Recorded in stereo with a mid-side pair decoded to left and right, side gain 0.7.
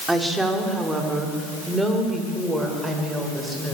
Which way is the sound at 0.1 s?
10° right.